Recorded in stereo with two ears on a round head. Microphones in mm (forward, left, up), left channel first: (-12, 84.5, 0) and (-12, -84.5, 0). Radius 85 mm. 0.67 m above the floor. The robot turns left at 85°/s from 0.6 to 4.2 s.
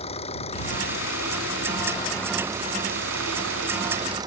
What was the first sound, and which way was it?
An engine running, 145° left.